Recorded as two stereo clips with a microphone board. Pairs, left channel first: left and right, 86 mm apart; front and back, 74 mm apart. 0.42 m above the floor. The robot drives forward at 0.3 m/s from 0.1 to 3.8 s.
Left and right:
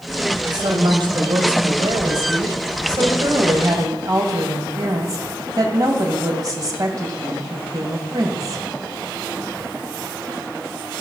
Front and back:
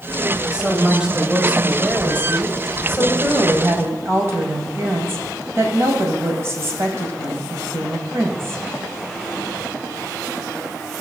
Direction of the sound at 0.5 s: 100° right.